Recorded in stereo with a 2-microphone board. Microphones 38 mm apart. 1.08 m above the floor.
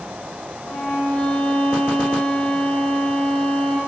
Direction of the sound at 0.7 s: 50° left (ahead or behind).